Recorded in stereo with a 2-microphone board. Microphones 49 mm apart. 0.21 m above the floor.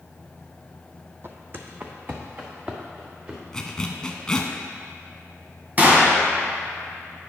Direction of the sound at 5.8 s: 30° right (ahead or behind).